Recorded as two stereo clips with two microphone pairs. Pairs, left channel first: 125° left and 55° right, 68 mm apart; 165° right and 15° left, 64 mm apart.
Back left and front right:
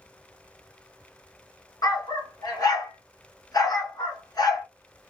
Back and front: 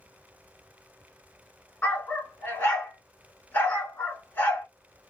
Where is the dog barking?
135° left, 1.1 m.